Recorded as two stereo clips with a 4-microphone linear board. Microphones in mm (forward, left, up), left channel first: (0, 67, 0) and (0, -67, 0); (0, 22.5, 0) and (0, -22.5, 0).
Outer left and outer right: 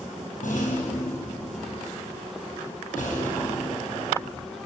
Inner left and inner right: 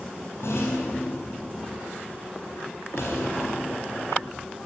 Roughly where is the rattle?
Left.